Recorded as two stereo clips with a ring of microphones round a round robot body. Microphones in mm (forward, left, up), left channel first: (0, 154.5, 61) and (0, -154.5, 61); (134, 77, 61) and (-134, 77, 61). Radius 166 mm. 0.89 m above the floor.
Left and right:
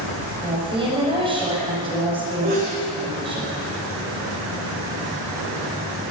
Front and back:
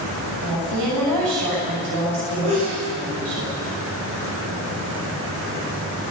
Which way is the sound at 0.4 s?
165° right.